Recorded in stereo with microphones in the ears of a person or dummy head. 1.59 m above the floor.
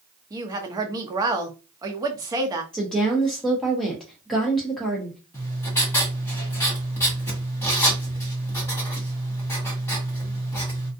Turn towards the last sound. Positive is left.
turn(degrees=15)  # may be behind; listen again after turning